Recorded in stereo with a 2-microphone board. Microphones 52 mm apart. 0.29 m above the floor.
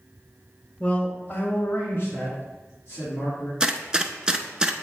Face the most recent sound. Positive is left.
turn(degrees=-15)  # may be behind; listen again after turning